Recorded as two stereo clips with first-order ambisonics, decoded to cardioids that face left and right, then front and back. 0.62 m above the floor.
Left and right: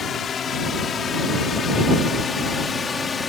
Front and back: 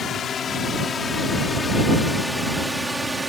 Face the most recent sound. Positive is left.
turn(degrees=125)